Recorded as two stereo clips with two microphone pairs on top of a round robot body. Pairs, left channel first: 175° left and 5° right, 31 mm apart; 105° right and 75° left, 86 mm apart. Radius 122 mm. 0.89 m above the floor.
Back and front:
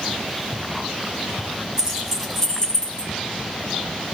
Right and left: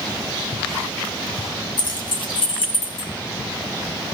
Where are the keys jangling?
70° right, 1.1 m; by 3.1 s 125° right, 1.4 m.